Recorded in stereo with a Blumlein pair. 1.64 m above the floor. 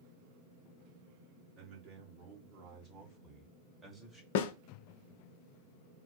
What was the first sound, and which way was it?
A man speaking, 40° right.